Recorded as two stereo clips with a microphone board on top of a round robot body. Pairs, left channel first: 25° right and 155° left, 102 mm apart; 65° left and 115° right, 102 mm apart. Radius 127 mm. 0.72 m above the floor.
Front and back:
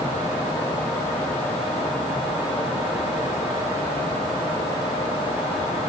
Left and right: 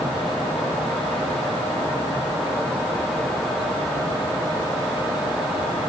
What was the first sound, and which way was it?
Only background noise.